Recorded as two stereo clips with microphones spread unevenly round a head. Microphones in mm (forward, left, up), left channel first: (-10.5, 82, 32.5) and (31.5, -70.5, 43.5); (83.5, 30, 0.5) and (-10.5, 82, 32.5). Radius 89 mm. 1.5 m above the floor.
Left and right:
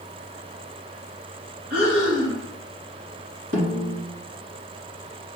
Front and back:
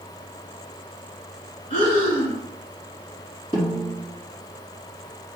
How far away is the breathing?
About 3 m.